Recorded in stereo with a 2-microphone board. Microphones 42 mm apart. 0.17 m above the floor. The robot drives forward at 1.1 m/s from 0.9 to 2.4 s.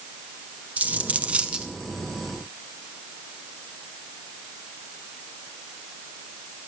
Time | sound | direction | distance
0.8 | a dropped coin | 35° right (ahead or behind) | 0.7 m